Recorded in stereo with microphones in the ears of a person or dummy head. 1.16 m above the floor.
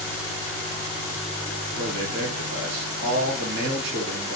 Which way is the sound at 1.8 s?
60° right (ahead or behind).